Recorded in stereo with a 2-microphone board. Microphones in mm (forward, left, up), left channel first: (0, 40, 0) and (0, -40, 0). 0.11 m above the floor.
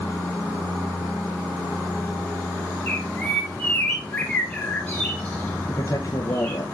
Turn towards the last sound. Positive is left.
turn(degrees=45)  # may be behind; listen again after turning